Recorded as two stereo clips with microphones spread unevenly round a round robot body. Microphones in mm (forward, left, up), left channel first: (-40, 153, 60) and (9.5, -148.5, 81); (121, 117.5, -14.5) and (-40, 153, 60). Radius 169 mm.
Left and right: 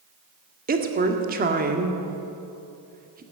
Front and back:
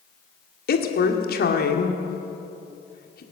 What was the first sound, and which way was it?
A woman speaking, 15° right.